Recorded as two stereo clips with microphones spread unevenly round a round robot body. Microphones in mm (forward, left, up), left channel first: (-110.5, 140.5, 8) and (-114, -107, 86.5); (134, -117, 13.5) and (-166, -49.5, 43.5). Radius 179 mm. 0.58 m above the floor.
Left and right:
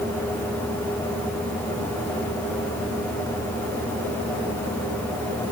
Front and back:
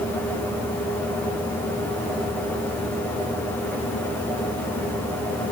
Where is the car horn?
I don't hear a car horn.